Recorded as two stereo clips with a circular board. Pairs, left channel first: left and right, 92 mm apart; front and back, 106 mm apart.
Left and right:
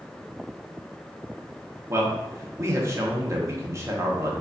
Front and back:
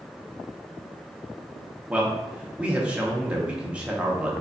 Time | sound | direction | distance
1.9 | a man speaking | 110° right | 0.7 m